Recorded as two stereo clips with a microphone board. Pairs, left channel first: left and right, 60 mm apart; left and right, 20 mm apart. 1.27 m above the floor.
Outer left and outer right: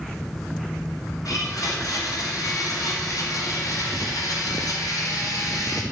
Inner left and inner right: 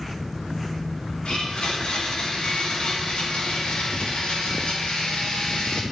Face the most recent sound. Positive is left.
turn(degrees=80)